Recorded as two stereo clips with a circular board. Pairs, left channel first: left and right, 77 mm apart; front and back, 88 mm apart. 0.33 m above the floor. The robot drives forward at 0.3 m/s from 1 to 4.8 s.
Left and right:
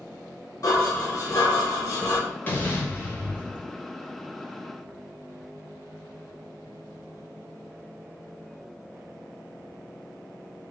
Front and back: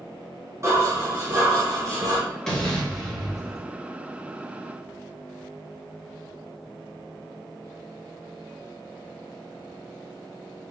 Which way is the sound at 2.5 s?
75° left.